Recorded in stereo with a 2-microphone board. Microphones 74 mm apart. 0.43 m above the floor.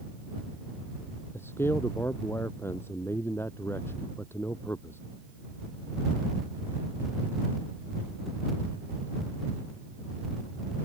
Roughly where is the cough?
No cough in this recording.